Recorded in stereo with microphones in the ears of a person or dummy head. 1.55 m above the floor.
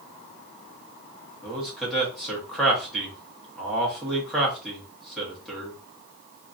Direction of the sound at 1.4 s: Centre (ahead or behind).